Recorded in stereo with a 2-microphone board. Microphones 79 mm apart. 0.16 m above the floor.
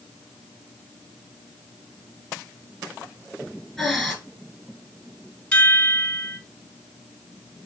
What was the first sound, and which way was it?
Breathing, centre (ahead or behind).